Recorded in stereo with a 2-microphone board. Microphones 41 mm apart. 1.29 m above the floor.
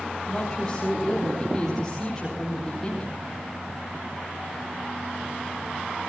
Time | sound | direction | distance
0.3 | a woman speaking | 10° left (ahead or behind) | 4 m